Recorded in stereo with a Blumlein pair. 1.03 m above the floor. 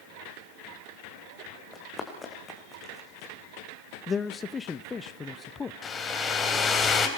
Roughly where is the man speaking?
Ahead.